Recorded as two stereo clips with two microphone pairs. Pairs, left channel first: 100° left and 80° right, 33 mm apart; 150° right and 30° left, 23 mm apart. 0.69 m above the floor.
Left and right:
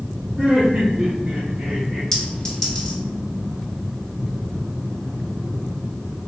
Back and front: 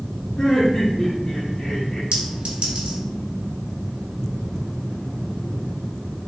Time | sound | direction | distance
0.4 | laughter | 115° right | 1.2 m
2.1 | a clink | 40° left | 1.5 m